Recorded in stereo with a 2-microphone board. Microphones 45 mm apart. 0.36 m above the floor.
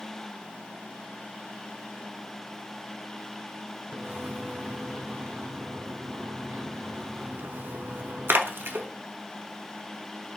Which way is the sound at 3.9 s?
65° right (ahead or behind).